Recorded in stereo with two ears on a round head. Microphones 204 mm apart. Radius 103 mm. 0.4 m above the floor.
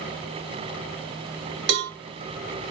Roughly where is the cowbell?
Right.